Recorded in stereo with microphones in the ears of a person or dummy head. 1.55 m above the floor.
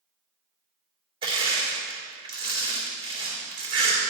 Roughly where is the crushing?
Right.